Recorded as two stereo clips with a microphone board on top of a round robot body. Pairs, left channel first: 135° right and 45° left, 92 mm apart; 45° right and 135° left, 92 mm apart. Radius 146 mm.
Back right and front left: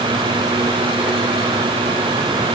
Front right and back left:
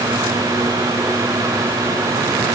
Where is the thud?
No thud in this recording.